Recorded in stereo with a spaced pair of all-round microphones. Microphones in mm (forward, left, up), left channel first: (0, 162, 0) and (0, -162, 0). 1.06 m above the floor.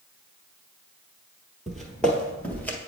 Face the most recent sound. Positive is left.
turn(degrees=5)  # may be behind; listen again after turning